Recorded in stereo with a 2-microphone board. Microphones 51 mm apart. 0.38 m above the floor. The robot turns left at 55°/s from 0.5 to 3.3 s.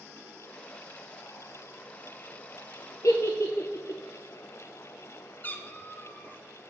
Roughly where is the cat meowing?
Left.